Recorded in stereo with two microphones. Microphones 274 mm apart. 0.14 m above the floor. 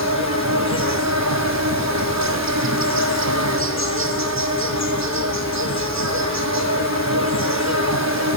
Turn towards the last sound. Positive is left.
turn(degrees=-85)